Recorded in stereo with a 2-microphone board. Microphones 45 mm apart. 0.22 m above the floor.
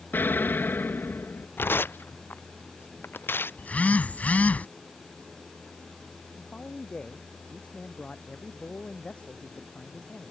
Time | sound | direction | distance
0.1 | an explosion | 50° left (ahead or behind) | ?
1.6 | tearing paper | 60° left (ahead or behind) | ?
3.6 | a phone buzzing | 40° left (ahead or behind) | ?
6.3 | a man speaking | 30° left (ahead or behind) | ?